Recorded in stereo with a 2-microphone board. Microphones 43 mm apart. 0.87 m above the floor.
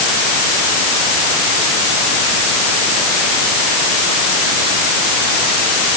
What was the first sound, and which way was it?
Only background noise.